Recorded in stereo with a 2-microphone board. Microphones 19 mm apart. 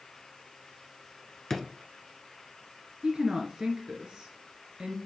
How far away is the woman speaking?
About 1.8 m.